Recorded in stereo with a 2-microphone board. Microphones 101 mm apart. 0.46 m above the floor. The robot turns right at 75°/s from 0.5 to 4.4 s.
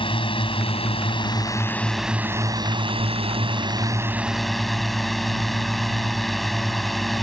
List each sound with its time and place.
0.0 s a drone: 70° left; by 7.2 s straight ahead